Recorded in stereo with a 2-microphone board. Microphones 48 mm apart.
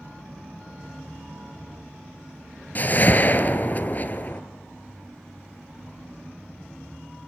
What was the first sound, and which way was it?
A whoosh, 40° left (ahead or behind).